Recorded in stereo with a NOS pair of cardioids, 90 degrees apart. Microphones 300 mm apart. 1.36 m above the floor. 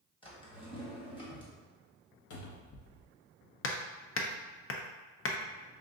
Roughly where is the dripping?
No dripping in this recording.